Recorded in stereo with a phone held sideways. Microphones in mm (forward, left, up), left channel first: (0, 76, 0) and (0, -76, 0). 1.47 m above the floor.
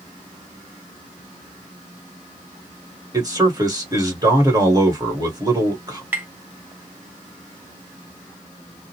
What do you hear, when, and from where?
3.1 s a man speaking: 25° right (ahead or behind), 1.4 m
6.1 s tapping: 15° right (ahead or behind), 0.8 m